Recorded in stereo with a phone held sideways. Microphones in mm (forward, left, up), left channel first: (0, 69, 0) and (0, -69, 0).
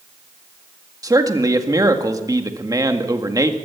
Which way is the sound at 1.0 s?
25° right (ahead or behind).